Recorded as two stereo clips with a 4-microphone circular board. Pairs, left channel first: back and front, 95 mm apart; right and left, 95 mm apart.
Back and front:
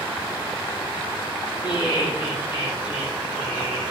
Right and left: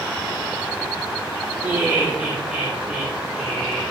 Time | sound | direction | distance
1.6 | laughter | 165° left | 3.5 m